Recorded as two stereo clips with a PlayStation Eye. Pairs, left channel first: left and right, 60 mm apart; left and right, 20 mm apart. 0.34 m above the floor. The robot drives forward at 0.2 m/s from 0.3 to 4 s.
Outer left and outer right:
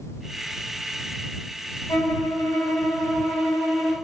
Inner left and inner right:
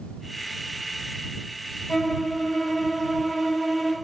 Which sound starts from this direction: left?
A violin, at 1.9 s.